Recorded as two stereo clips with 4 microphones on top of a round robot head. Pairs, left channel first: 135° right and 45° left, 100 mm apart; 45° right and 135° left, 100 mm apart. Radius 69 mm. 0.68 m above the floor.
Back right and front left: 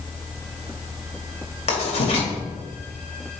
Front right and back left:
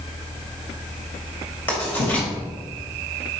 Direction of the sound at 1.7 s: 115° right.